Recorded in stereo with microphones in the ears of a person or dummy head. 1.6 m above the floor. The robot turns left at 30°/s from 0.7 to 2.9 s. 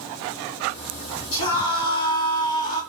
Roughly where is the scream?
Left.